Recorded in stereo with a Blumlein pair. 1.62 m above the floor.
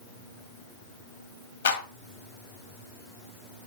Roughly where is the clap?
Ahead left.